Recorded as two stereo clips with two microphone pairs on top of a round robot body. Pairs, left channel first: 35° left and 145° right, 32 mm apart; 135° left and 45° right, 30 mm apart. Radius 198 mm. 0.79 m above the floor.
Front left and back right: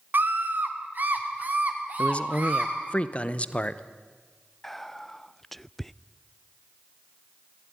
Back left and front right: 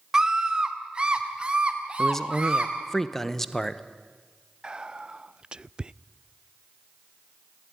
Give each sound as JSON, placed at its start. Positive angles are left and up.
{"t": 0.1, "sound": "a scream", "azimuth_deg": -115, "distance_m": 1.9}
{"t": 2.0, "sound": "a man speaking", "azimuth_deg": 40, "distance_m": 1.1}
{"t": 4.6, "sound": "whispering", "azimuth_deg": -40, "distance_m": 0.6}